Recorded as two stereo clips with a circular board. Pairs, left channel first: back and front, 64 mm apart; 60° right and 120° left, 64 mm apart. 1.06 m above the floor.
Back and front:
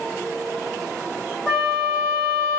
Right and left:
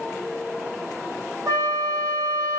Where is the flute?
110° left, 1.1 m.